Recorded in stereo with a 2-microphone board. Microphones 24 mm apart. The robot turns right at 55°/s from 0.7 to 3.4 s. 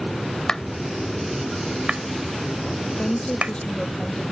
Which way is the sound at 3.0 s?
55° left (ahead or behind).